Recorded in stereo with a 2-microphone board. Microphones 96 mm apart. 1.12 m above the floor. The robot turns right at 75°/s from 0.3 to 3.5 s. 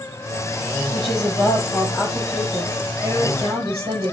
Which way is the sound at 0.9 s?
75° left.